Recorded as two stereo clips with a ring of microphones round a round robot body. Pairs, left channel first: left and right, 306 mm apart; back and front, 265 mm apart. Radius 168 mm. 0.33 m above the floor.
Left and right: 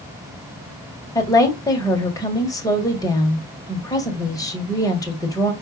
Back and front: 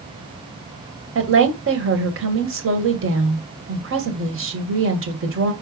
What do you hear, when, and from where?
1.1 s a woman speaking: 15° left, 1.9 m